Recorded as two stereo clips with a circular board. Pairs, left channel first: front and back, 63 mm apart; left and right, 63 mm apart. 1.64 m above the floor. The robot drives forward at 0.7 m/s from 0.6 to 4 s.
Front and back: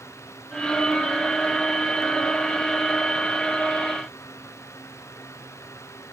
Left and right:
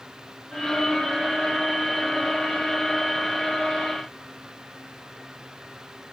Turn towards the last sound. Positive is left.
No sound to turn to.